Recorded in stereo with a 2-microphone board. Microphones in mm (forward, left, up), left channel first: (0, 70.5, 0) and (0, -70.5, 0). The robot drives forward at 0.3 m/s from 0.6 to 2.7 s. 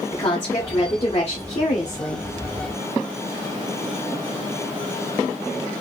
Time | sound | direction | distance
0.1 | a woman speaking | 40° left (ahead or behind) | 1.2 m